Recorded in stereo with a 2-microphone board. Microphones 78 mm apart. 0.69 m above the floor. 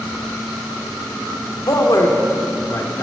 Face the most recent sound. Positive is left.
turn(degrees=50)  # may be behind; listen again after turning